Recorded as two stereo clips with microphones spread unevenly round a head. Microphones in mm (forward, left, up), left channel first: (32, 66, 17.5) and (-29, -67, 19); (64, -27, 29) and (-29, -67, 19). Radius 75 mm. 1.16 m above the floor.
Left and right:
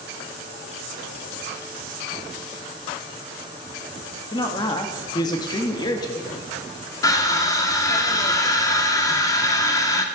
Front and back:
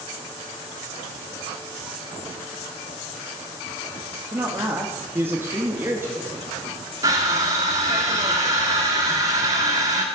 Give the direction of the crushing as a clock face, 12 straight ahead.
8 o'clock.